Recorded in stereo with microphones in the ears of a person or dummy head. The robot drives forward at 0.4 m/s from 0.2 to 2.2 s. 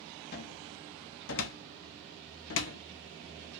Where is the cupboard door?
50° left (ahead or behind), 1.0 m; by 2.8 s 60° left (ahead or behind), 0.9 m.